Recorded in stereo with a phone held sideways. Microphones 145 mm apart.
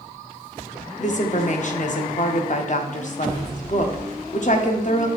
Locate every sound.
1.0 s a woman speaking: 55° left (ahead or behind), 0.6 m